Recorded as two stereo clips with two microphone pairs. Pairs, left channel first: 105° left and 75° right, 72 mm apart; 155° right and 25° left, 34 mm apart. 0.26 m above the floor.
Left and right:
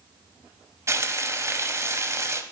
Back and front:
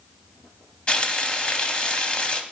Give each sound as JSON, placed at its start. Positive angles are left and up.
{"t": 0.9, "sound": "frying", "azimuth_deg": -105, "distance_m": 0.6}